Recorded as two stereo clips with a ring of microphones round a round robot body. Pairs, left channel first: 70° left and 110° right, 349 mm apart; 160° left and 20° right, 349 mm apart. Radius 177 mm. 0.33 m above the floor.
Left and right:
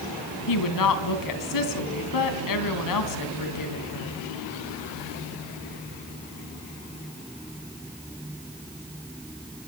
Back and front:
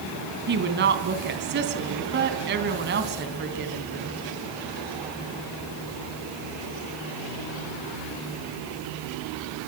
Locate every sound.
0.5 s a woman speaking: 35° left, 3 m